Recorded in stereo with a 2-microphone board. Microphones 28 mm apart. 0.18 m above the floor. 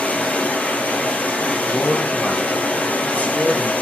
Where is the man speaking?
75° left (ahead or behind), 4 m.